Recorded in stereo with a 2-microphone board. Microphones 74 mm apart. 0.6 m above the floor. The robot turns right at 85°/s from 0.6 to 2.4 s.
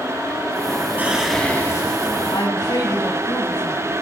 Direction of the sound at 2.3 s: 70° left (ahead or behind).